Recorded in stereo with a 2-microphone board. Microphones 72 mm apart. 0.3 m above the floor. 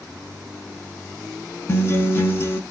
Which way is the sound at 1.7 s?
35° left (ahead or behind).